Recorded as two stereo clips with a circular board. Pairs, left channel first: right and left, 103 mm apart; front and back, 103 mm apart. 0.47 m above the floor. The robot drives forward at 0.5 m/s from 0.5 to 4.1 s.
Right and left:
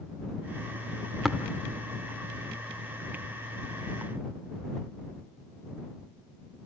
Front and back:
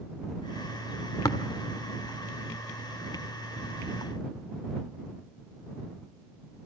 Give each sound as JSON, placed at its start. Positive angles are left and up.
{"t": 1.2, "sound": "tapping", "azimuth_deg": 0, "distance_m": 1.4}